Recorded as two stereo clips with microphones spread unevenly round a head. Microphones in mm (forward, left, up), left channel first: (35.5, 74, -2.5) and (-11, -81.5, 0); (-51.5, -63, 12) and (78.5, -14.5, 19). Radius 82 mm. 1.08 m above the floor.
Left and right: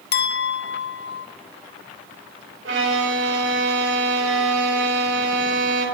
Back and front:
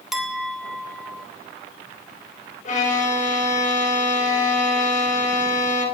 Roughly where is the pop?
I don't hear a pop.